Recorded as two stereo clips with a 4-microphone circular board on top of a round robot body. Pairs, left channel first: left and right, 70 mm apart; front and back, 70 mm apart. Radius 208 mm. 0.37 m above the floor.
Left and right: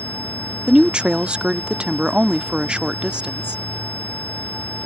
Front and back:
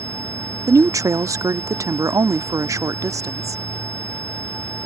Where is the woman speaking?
165° right.